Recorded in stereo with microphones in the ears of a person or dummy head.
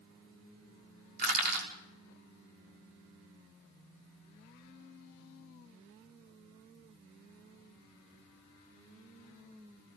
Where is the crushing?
55° right (ahead or behind), 5.5 m.